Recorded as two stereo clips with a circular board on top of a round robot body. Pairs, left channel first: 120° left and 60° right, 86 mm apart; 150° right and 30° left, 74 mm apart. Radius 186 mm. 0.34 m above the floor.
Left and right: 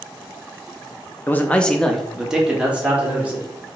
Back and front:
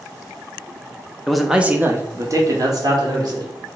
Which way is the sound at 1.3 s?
135° left.